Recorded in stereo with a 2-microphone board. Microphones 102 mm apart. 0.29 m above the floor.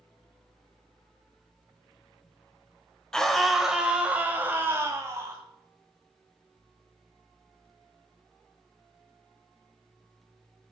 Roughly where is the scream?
Centre.